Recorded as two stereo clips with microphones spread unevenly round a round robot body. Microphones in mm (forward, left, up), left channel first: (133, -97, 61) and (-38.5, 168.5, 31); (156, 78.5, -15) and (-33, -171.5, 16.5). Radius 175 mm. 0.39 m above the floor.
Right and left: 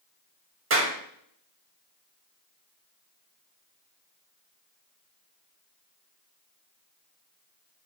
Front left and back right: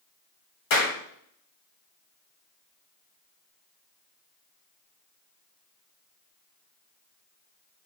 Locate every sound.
0.7 s a clap: 80° left, 1.9 m